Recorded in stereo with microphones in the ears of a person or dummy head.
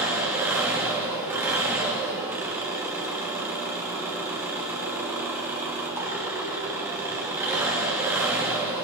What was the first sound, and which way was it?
An engine running, 10° right (ahead or behind).